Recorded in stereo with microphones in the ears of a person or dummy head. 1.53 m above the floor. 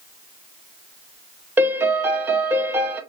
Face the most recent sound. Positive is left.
turn(degrees=-15)  # may be behind; listen again after turning